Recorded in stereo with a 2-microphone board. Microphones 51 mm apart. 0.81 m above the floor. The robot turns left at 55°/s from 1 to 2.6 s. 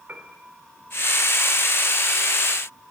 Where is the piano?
35° right (ahead or behind), 2.5 m.